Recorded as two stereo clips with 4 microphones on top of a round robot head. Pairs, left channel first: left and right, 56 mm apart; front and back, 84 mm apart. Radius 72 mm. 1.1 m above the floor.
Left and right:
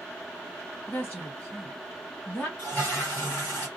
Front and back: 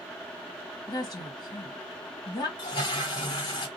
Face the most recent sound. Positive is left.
turn(degrees=35)